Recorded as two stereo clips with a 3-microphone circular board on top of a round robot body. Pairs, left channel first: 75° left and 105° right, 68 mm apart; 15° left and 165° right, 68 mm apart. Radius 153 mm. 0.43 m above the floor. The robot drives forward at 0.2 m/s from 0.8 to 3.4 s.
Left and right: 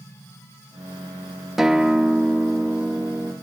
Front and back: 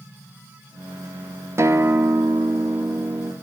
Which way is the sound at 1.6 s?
175° left.